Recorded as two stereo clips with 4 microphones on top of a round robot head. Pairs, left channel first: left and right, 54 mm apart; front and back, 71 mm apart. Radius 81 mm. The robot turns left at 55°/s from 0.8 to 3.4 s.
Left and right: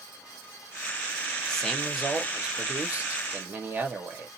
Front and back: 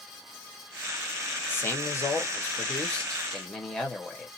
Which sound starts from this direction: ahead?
A man speaking, at 1.5 s.